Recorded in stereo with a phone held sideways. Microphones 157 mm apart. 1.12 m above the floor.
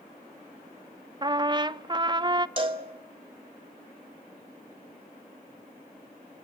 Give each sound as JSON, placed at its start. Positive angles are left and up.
{"t": 1.2, "sound": "a trumpet", "side_deg": -30, "distance_m": 0.6}
{"t": 2.6, "sound": "a cowbell", "side_deg": -35, "distance_m": 2.0}